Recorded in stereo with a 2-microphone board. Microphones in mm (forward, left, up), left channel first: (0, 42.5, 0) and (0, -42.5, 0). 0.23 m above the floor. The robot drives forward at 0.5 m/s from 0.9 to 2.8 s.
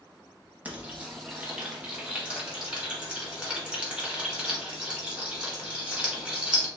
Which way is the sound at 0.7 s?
15° right (ahead or behind).